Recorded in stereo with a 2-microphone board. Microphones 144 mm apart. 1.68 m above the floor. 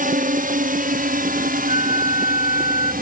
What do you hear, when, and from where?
0.0 s a drone: 65° right (ahead or behind); by 3.0 s 75° right (ahead or behind)
1.7 s a flute: 70° left (ahead or behind)